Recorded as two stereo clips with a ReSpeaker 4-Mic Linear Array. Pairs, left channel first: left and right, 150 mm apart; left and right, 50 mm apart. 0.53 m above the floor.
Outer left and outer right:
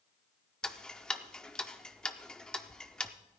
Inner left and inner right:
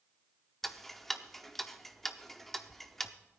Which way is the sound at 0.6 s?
5° left (ahead or behind).